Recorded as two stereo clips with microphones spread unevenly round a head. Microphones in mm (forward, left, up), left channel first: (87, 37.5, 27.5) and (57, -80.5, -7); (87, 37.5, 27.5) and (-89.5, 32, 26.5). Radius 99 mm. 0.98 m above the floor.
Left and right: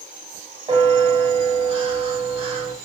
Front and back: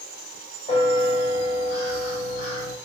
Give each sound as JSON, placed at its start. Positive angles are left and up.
{"t": 0.7, "sound": "a bell", "azimuth_deg": -55, "distance_m": 1.3}